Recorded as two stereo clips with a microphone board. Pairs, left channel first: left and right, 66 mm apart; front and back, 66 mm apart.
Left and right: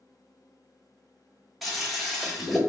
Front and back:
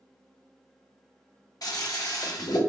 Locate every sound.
1.6 s a toilet flushing: straight ahead, 0.8 m